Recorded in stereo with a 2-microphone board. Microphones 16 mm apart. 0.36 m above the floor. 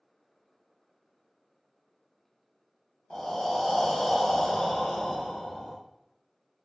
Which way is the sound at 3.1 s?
60° left (ahead or behind).